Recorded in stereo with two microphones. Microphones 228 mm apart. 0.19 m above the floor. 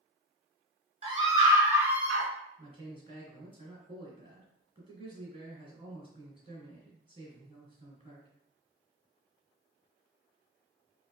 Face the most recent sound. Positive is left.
turn(degrees=-25)  # may be behind; listen again after turning